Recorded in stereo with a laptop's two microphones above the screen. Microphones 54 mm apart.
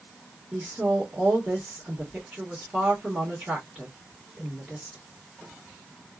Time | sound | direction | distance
0.5 | a woman speaking | 10° right (ahead or behind) | 2.0 m